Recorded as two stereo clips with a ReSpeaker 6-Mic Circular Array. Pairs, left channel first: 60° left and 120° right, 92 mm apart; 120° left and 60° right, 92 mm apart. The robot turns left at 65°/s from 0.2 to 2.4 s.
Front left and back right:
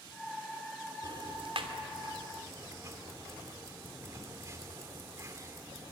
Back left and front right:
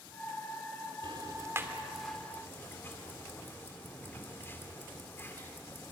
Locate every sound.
1.0 s ticking: 85° right, 2.5 m; by 5.9 s 175° right, 2.5 m